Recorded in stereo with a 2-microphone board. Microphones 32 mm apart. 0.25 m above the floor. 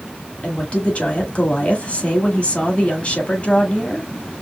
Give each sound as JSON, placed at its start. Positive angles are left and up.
{"t": 0.4, "sound": "a woman speaking", "side_deg": 40, "distance_m": 1.3}